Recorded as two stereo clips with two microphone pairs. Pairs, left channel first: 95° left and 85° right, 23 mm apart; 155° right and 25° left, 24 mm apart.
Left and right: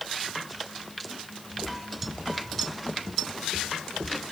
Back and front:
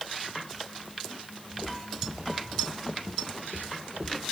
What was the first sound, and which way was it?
Footsteps, 80° right.